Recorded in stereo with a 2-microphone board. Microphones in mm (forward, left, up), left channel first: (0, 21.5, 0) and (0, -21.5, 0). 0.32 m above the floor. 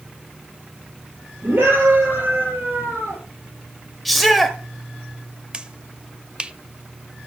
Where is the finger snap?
25° right (ahead or behind), 0.7 m.